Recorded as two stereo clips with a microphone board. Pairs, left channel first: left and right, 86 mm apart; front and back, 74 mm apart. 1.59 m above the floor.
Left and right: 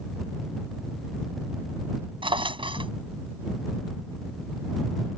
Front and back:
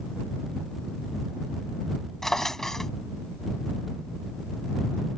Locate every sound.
2.2 s a drawer: 85° right